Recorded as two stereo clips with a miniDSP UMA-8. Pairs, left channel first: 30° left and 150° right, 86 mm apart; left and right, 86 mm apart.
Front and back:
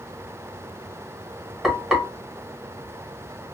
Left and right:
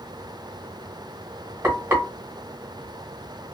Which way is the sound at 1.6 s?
65° right.